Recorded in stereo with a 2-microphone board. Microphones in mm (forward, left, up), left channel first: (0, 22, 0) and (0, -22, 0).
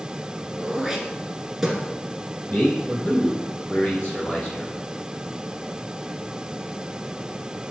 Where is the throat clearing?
10° right (ahead or behind), 1.3 m.